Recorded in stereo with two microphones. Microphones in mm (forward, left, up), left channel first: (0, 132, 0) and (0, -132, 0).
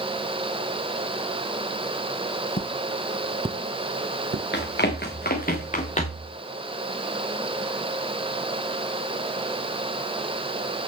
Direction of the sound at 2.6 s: 30° left (ahead or behind).